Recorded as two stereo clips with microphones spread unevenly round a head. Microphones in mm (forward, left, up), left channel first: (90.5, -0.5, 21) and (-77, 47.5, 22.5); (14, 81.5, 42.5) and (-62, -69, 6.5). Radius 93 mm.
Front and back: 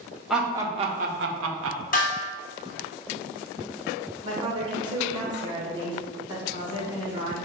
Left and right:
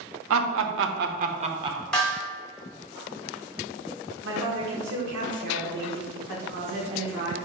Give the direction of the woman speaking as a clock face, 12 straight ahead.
4 o'clock.